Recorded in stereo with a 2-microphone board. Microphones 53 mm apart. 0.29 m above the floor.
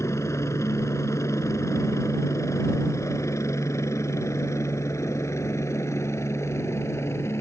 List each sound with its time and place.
0.0 s a helicopter: 65° left (ahead or behind); by 7.4 s 60° left (ahead or behind)